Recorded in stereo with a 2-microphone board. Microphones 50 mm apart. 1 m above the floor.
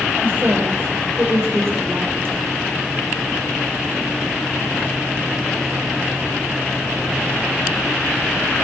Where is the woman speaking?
45° right (ahead or behind), 4.5 m.